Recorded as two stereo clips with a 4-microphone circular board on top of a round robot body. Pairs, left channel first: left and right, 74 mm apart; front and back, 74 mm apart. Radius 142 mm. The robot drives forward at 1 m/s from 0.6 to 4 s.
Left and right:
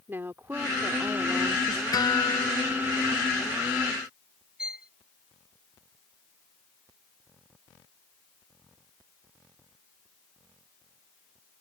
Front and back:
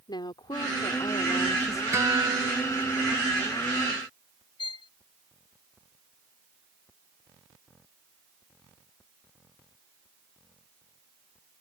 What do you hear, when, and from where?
0.1 s a woman speaking: 25° right; by 1.8 s 45° right
1.9 s a guitar: 125° left; by 3.1 s 135° left
4.6 s a violin: 10° right